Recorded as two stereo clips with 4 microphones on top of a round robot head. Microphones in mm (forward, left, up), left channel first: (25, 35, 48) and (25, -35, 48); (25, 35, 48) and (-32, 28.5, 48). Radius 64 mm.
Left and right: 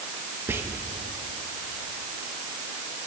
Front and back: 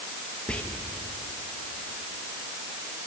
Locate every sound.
0.5 s whispering: 55° right, 1.3 m